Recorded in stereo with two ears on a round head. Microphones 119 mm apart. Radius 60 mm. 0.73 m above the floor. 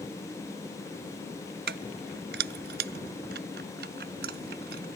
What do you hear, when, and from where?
1.7 s keys jangling: 80° right; by 4.9 s 85° right